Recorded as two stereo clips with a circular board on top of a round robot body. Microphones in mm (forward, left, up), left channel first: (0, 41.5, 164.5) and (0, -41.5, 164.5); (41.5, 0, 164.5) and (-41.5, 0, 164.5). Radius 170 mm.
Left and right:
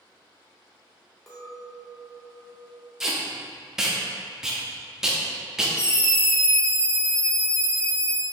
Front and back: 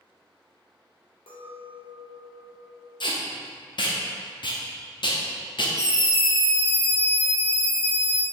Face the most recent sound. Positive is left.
turn(degrees=45)